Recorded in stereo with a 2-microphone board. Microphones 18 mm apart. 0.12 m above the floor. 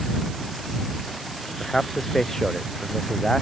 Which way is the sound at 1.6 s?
15° left (ahead or behind).